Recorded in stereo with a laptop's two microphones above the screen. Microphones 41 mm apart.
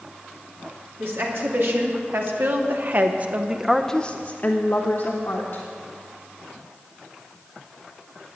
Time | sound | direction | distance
1.0 | a woman speaking | 65° right (ahead or behind) | 2 m